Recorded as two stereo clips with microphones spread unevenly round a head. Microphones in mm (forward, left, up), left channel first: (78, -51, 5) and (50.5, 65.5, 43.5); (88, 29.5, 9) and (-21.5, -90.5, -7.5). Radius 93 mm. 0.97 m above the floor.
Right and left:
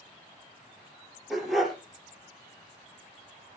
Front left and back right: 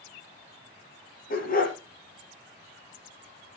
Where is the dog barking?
15° left, 5.5 m.